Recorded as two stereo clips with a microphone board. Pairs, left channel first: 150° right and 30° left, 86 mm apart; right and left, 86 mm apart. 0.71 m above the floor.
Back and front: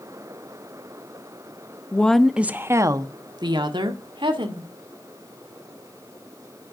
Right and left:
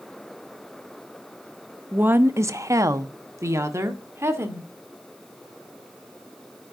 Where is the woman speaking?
150° left, 0.8 m; by 4.7 s 30° left, 2 m.